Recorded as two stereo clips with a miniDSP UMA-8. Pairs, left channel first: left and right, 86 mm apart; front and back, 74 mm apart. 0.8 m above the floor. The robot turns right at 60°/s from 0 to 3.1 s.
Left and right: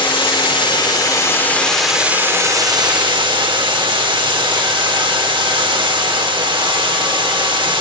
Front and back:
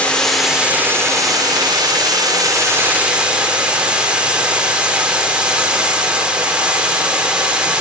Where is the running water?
70° left, 2.5 m; by 7.8 s 105° right, 2.5 m.